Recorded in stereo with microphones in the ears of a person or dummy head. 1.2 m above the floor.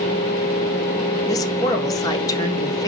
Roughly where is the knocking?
No knocking in this recording.